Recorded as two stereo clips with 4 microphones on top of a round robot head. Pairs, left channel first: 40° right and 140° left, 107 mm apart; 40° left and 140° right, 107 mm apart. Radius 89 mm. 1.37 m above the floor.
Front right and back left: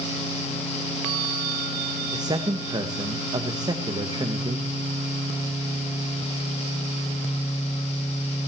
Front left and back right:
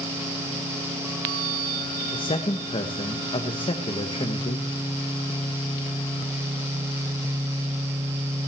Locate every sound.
2.1 s a man speaking: 85° left, 1.7 m